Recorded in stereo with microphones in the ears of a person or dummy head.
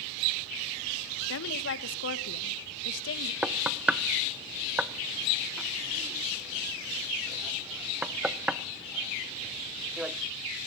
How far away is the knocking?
About 0.7 m.